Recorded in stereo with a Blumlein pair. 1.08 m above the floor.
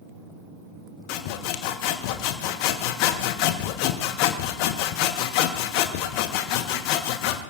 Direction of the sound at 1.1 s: 45° left.